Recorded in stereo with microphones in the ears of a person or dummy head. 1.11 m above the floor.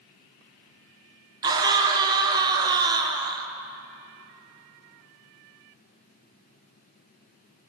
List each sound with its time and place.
1.4 s a scream: 20° right (ahead or behind), 0.5 m